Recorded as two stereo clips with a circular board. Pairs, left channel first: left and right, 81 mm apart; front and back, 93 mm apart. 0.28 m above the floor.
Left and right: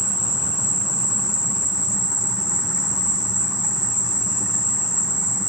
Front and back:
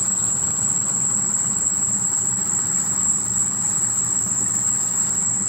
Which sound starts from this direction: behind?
An insect, at 0.0 s.